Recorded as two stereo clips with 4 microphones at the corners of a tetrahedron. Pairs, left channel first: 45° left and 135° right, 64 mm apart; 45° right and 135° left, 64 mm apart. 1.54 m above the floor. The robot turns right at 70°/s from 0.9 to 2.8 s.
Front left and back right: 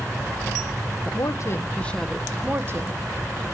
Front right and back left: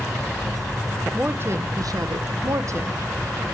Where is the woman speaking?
65° left, 1.2 m; by 3.0 s straight behind, 1.2 m.